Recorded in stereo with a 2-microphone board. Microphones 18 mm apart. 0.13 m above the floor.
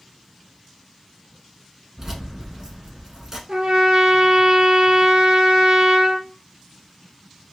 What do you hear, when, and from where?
2.0 s keys jangling: 30° right (ahead or behind), 0.9 m
3.5 s a trumpet: 60° right (ahead or behind), 0.8 m